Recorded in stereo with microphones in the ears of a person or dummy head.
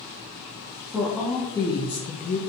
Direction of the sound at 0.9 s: 5° right (ahead or behind).